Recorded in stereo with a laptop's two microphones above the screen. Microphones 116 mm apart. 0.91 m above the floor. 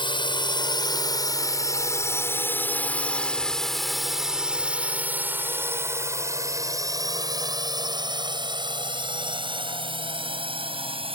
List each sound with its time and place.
0.0 s a drone: 45° left (ahead or behind); by 11.2 s 50° right (ahead or behind)